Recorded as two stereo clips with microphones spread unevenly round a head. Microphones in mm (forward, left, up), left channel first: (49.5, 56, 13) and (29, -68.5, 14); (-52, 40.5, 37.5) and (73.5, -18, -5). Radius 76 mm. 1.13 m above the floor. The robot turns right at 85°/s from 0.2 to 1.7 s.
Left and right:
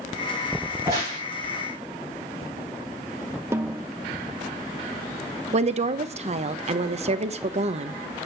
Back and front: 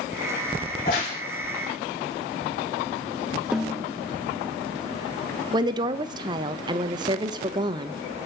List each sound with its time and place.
0.7 s a crack: 175° left, 9 m; by 1.2 s 145° right, 9 m
3.5 s a snare drum: 145° right, 0.6 m
5.5 s a woman speaking: 75° right, 1.1 m